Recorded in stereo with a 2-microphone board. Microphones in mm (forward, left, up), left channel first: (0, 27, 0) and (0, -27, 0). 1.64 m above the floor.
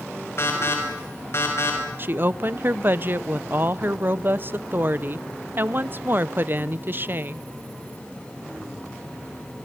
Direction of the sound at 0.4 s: 55° left (ahead or behind).